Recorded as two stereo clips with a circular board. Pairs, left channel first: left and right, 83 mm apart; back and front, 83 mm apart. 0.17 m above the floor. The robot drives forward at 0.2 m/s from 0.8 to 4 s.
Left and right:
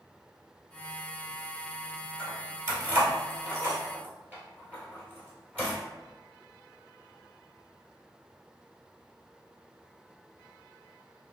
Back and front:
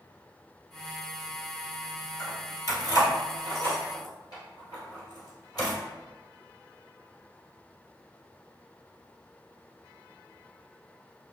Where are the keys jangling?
145° right, 1.4 m; by 5.8 s 155° right, 1.7 m.